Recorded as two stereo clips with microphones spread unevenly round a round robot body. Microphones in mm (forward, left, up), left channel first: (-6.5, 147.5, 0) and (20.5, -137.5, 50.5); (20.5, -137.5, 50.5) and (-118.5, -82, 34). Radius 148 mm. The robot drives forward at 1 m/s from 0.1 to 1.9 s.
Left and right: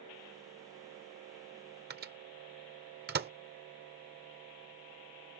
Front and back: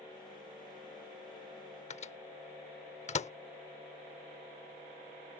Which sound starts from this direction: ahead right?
A microwave, at 1.9 s.